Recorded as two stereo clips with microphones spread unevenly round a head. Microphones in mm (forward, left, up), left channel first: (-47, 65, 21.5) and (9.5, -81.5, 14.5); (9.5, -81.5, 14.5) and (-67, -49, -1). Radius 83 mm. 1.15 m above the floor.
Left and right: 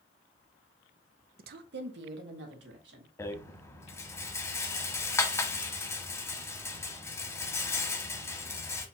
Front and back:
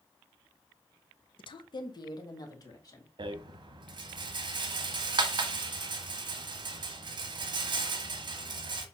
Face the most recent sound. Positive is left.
turn(degrees=180)